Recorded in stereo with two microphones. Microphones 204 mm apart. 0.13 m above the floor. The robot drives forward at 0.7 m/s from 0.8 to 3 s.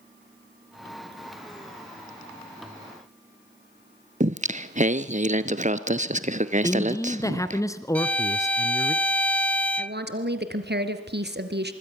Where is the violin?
5° left (ahead or behind), 0.5 m.